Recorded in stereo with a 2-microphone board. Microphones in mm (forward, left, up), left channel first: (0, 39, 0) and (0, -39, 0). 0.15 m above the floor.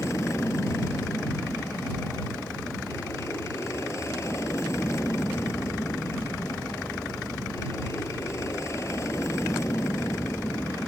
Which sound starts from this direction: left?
An aircraft, at 0.0 s.